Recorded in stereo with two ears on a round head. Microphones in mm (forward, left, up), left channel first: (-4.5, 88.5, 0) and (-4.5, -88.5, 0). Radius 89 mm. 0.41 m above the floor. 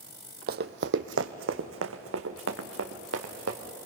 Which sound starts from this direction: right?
Running footsteps, at 0.5 s.